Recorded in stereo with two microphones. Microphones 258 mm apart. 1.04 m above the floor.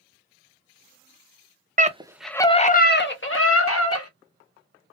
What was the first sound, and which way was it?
A scream, 30° right (ahead or behind).